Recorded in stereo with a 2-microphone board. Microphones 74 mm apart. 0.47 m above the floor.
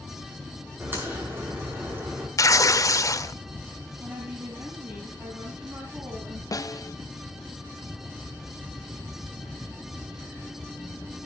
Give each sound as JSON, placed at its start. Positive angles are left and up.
{"t": 0.8, "sound": "a crack", "side_deg": -30, "distance_m": 7.0}
{"t": 2.4, "sound": "tearing paper", "side_deg": 45, "distance_m": 0.7}
{"t": 4.0, "sound": "a woman speaking", "side_deg": -35, "distance_m": 4.0}
{"t": 6.5, "sound": "a snare drum", "side_deg": 50, "distance_m": 0.5}